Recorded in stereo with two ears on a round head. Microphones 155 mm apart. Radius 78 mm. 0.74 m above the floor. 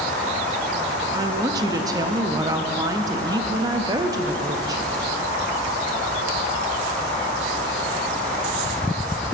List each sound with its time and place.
1.1 s a woman speaking: 20° right (ahead or behind), 0.6 m